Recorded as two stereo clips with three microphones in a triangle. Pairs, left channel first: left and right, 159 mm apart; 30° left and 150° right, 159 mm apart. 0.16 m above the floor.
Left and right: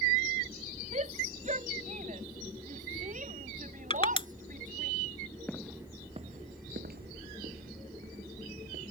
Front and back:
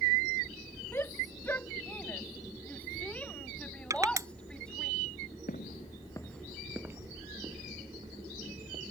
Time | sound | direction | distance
0.9 | a shout | 45° right | ?
3.9 | crushing | 145° left | ?
5.5 | footsteps | 10° left | ?